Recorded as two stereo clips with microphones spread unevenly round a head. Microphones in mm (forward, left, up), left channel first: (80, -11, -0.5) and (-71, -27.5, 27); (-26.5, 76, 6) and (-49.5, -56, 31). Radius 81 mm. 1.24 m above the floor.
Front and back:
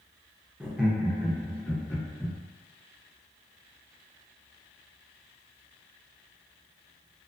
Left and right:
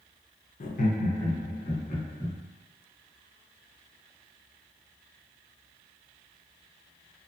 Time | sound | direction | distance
0.6 | laughter | 100° left | 0.7 m